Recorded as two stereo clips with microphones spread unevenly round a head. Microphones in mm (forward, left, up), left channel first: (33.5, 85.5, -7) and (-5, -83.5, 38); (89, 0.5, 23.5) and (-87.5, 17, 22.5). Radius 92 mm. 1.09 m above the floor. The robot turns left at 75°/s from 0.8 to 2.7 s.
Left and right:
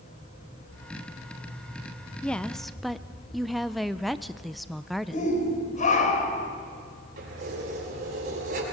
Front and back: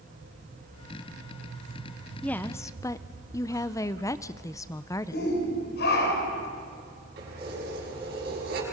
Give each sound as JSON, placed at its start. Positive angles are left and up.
{"t": 2.2, "sound": "a woman speaking", "azimuth_deg": 70, "distance_m": 0.5}
{"t": 5.1, "sound": "a shout", "azimuth_deg": 25, "distance_m": 4.0}
{"t": 7.2, "sound": "keys jangling", "azimuth_deg": -145, "distance_m": 7.0}